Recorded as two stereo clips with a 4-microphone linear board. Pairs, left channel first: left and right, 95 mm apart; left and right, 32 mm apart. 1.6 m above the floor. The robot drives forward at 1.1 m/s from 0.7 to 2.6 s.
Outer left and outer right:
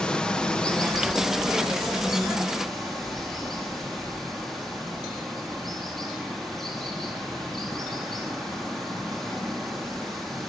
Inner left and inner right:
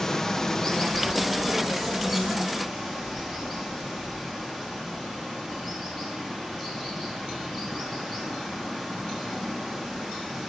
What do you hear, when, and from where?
0.0 s running water: 10° left (ahead or behind), 0.9 m; by 10.5 s 5° left (ahead or behind), 3 m